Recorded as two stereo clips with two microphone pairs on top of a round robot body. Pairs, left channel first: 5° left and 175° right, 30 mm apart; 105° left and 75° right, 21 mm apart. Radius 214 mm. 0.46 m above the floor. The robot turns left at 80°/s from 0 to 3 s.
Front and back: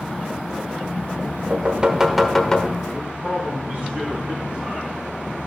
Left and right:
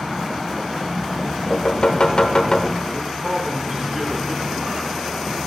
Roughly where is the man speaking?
Behind right.